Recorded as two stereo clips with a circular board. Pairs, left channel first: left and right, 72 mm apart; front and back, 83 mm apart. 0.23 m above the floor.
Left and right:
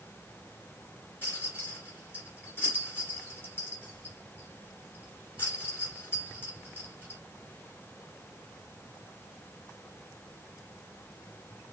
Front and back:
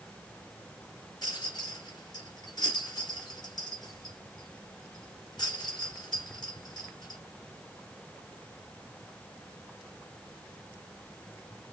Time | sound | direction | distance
1.2 | a rattle | 35° left | 2.0 m